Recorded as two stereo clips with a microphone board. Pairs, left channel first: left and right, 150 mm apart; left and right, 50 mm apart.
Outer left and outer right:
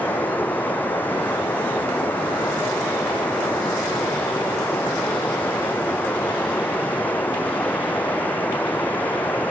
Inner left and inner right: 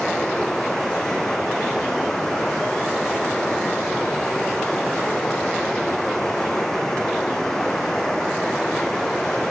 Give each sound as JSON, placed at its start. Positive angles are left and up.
{"t": 0.0, "sound": "running water", "side_deg": 10}